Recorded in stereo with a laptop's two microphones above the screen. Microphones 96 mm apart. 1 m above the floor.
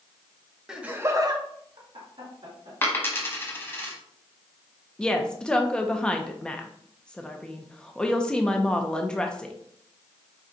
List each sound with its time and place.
0.7 s laughter: 5° right (ahead or behind), 1.1 m; by 2.7 s 70° right (ahead or behind), 2 m
2.8 s a dropped coin: 20° left (ahead or behind), 0.9 m
5.0 s a woman speaking: 10° left (ahead or behind), 0.7 m